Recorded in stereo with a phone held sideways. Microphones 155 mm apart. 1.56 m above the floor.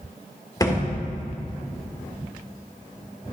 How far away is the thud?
About 1.9 m.